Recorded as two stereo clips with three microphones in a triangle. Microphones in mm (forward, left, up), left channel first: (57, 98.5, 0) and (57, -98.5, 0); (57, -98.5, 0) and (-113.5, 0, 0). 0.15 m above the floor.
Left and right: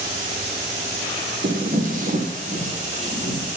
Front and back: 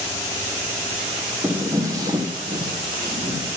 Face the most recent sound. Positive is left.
turn(degrees=-145)